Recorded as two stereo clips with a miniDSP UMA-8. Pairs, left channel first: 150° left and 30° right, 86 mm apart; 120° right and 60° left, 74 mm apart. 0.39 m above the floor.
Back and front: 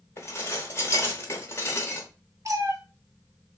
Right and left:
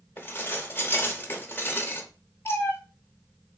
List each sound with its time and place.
0.2 s dishes clattering: 170° right, 0.7 m
2.5 s a cat meowing: 70° right, 0.6 m